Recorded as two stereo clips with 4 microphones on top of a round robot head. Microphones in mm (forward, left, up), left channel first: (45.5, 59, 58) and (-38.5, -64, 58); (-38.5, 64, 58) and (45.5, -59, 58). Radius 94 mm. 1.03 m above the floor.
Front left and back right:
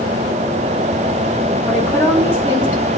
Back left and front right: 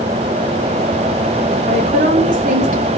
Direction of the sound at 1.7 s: 20° right.